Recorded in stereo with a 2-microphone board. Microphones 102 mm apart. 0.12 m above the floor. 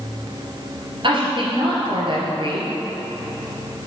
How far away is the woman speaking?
About 2 m.